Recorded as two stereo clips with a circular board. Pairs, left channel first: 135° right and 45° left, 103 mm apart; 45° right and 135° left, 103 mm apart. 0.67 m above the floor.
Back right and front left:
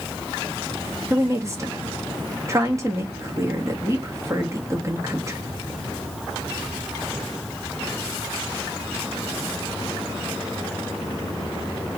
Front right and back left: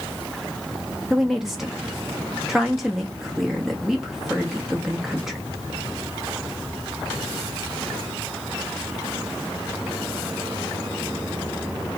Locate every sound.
1.1 s a woman speaking: 50° left, 0.6 m